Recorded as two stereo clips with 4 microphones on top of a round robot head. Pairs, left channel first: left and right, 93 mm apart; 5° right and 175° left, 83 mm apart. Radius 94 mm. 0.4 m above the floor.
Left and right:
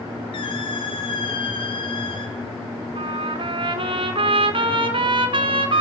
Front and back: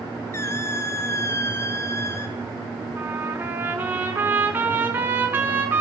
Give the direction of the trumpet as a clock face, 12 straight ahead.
4 o'clock.